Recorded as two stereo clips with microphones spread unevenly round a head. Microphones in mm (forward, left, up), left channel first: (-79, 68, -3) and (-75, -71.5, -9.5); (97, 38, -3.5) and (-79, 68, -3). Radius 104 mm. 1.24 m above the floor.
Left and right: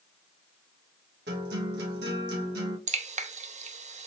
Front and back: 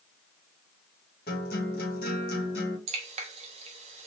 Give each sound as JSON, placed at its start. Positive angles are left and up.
{"t": 1.3, "sound": "a guitar", "azimuth_deg": -60, "distance_m": 1.3}
{"t": 2.9, "sound": "dripping", "azimuth_deg": -130, "distance_m": 0.6}